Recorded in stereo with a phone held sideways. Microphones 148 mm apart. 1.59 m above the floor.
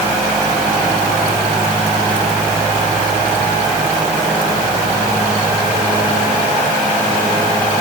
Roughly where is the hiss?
I don't hear a hiss.